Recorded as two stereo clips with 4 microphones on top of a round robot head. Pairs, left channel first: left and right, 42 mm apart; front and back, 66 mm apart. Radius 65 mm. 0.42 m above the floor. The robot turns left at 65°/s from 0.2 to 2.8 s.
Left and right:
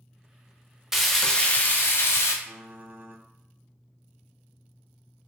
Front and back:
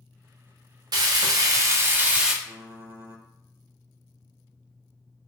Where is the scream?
No scream in this recording.